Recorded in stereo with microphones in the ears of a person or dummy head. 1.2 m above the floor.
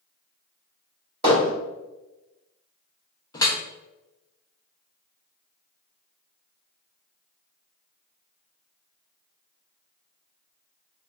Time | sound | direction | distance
1.2 | hammering | 30° right (ahead or behind) | 1.8 m
3.3 | dripping | 15° left (ahead or behind) | 0.5 m